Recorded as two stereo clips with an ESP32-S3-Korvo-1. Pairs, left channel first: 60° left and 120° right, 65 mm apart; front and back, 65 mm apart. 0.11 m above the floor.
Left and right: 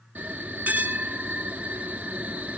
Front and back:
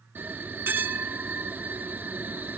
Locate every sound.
0.1 s a bell: 165° right, 0.8 m